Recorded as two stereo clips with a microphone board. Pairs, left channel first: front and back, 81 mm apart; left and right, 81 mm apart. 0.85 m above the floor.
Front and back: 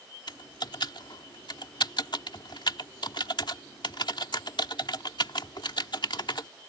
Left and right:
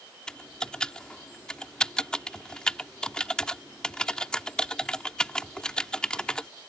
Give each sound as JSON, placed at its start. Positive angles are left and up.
{"t": 0.3, "sound": "typing on a keyboard", "azimuth_deg": 10}